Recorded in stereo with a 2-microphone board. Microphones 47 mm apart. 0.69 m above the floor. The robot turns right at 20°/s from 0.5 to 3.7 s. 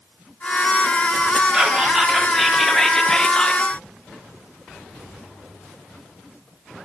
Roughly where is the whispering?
Ahead.